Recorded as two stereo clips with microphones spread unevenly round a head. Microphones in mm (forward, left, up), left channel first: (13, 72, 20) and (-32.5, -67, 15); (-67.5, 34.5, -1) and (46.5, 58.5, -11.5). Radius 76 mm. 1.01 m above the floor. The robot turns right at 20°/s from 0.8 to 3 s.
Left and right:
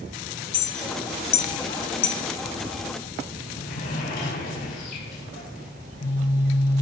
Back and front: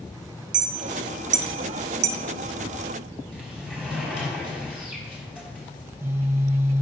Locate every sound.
0.5 s a clink: 15° left, 0.6 m; by 2.2 s 40° left, 0.6 m
3.3 s a sliding door: 95° left, 4.5 m
5.8 s a phone buzzing: 80° left, 2 m